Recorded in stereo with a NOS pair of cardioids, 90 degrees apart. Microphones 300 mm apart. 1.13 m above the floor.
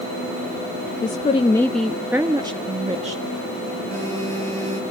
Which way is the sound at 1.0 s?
25° left.